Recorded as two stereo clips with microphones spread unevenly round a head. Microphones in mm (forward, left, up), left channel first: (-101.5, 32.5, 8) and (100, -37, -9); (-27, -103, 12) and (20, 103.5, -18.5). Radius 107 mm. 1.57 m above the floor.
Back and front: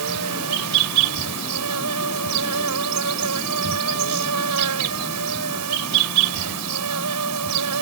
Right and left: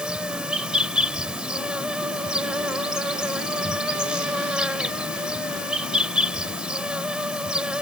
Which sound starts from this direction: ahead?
An insect, at 0.0 s.